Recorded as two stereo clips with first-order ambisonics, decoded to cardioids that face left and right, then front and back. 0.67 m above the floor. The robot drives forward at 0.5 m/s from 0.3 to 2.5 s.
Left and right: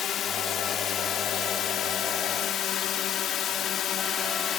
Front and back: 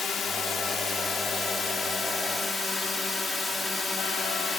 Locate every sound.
0.0 s a drone: 50° left; by 4.6 s 65° left